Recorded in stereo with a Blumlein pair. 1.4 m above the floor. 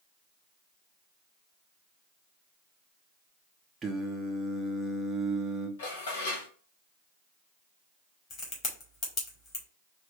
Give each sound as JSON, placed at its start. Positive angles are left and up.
{"t": 3.8, "sound": "singing", "azimuth_deg": -15, "distance_m": 0.9}
{"t": 5.8, "sound": "dishes clattering", "azimuth_deg": 60, "distance_m": 1.4}
{"t": 8.3, "sound": "a crack", "azimuth_deg": 30, "distance_m": 2.0}